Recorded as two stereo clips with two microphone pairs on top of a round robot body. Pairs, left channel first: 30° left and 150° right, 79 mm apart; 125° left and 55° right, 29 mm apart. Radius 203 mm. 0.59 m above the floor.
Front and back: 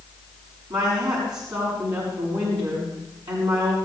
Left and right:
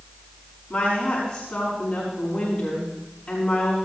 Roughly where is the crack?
I don't hear a crack.